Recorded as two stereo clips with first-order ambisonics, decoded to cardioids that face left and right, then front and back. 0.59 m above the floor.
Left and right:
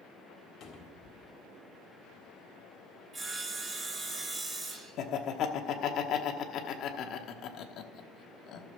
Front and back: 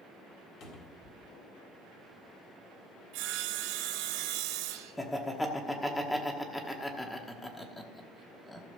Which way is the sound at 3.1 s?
160° right.